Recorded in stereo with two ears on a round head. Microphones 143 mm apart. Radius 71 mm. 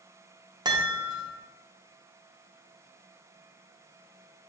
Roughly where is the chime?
Right.